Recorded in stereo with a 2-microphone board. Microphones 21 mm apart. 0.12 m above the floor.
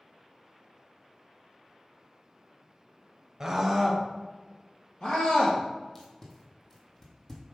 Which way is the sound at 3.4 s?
25° right (ahead or behind).